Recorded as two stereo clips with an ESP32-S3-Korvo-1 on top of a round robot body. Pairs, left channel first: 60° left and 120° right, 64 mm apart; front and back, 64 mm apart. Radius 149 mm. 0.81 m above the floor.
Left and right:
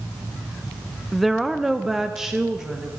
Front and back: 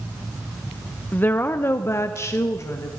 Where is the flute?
No flute in this recording.